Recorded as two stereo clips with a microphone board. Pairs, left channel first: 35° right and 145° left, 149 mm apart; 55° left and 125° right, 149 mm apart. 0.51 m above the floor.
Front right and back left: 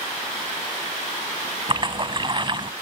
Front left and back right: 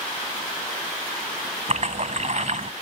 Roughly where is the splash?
Behind.